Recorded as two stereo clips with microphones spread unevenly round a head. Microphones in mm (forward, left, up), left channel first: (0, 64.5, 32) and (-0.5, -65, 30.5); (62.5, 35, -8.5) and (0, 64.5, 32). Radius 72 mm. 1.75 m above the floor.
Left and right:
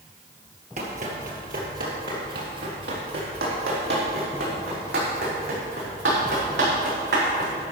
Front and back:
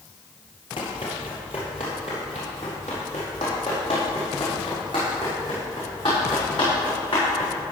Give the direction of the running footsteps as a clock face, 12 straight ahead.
3 o'clock.